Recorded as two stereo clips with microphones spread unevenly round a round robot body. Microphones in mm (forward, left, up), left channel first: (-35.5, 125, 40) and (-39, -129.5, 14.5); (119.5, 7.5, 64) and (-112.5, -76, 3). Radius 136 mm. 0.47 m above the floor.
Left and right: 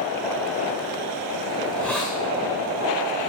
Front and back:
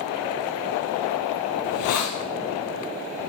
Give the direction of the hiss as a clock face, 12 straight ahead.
12 o'clock.